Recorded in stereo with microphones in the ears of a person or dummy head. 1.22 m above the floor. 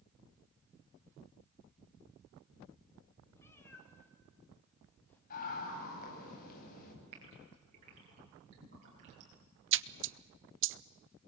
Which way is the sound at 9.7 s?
60° right (ahead or behind).